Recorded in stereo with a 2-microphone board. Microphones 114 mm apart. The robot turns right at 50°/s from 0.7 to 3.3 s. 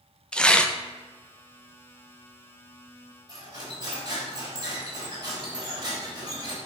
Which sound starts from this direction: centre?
Tearing paper, at 0.3 s.